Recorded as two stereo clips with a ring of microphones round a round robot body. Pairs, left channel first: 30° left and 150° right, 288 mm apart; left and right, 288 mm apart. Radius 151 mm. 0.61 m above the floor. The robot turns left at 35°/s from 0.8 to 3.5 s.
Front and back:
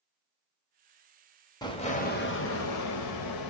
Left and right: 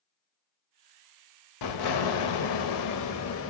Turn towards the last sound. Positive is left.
turn(degrees=40)